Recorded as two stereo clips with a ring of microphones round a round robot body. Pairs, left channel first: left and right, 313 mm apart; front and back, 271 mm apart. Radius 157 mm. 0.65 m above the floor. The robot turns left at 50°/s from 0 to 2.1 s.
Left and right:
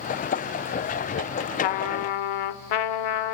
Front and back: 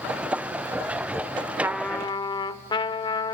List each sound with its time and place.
1.6 s a trumpet: 100° left, 0.7 m; by 3.4 s 75° left, 0.7 m